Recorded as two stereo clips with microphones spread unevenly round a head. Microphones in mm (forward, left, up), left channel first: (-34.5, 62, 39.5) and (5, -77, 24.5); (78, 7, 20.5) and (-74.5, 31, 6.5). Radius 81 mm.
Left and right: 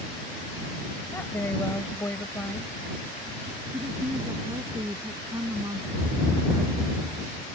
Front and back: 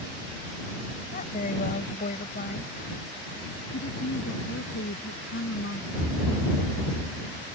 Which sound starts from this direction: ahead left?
A woman speaking, at 1.1 s.